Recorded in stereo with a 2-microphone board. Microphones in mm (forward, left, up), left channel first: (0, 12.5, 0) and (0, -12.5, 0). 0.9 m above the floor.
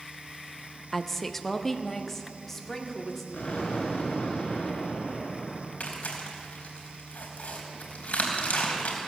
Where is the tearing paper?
85° left, 3.5 m.